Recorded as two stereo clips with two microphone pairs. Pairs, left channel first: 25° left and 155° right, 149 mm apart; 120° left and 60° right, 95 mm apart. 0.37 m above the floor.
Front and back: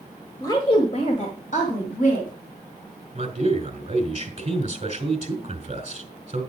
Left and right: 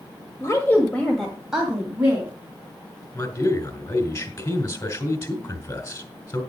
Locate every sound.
0.4 s a woman speaking: 85° left, 1.4 m; by 2.3 s 10° left, 3 m
3.1 s a man speaking: 165° left, 2.5 m